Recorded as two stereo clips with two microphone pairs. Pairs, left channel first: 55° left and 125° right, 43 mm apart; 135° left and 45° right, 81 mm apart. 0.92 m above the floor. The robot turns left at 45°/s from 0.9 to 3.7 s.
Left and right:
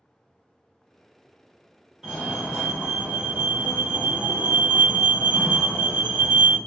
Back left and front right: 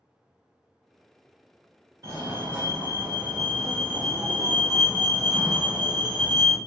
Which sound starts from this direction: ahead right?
A fire alarm, at 2.0 s.